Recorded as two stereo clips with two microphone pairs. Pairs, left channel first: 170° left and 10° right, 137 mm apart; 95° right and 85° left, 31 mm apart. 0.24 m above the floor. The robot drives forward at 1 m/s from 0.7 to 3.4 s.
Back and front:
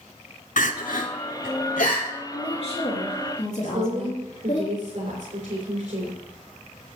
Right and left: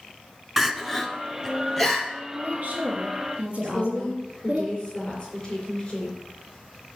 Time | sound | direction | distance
0.6 | crying | 170° left | 0.7 m
2.3 | a woman speaking | 120° left | 2.5 m
3.6 | a woman speaking | 30° right | 4 m